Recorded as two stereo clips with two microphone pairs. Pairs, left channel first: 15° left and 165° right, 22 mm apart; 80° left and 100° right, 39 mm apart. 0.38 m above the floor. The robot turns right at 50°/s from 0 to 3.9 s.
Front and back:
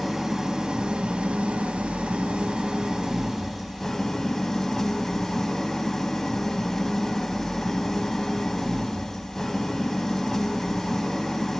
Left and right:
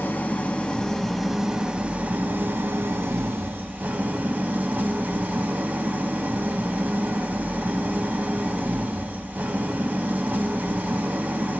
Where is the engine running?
110° left, 0.7 m; by 11.6 s 55° right, 0.7 m.